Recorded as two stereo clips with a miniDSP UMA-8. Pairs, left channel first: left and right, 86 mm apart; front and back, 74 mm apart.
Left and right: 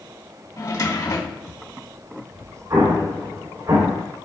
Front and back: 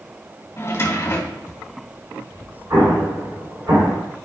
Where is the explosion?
145° right, 4 m.